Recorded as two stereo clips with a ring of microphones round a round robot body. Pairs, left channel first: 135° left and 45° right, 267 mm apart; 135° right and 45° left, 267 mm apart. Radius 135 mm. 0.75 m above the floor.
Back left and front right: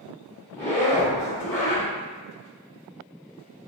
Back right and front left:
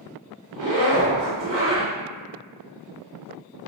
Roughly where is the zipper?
Ahead left.